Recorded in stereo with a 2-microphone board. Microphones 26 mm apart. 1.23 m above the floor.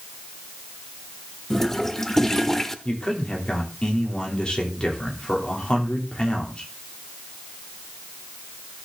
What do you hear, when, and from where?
1.5 s a toilet flushing: 10° left (ahead or behind), 1.0 m
2.9 s a man speaking: 40° left (ahead or behind), 3 m